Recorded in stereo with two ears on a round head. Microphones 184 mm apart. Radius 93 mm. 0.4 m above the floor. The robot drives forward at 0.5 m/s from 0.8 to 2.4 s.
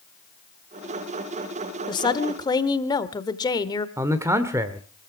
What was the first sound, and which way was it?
A woman speaking, 20° left (ahead or behind).